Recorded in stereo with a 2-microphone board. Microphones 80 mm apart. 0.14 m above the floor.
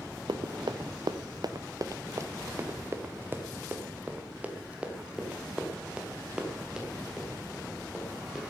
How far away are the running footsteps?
About 1.2 m.